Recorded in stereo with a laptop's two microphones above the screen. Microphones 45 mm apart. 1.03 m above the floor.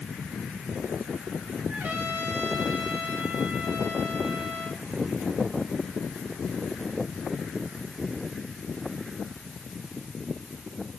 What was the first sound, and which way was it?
A trumpet, 40° right (ahead or behind).